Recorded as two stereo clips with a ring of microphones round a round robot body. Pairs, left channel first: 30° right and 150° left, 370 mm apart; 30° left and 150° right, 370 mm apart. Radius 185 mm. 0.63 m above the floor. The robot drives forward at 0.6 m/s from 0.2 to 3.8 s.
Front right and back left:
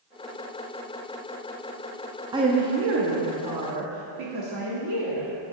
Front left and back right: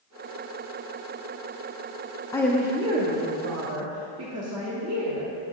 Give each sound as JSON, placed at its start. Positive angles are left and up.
{"t": 2.3, "sound": "a woman speaking", "azimuth_deg": 90, "distance_m": 0.6}